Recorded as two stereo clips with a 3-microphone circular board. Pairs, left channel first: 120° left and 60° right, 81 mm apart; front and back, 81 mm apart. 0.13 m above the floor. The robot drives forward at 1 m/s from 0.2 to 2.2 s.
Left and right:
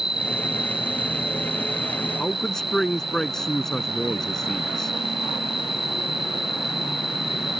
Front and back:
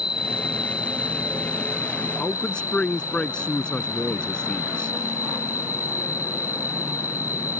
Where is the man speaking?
50° left; by 4.9 s 55° left.